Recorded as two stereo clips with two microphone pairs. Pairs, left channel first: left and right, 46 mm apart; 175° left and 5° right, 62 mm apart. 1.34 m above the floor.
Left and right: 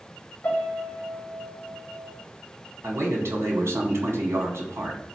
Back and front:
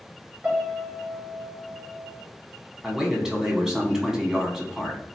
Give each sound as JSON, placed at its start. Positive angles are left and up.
{"t": 0.4, "sound": "a piano", "azimuth_deg": 50, "distance_m": 1.5}
{"t": 2.8, "sound": "a man speaking", "azimuth_deg": -90, "distance_m": 1.3}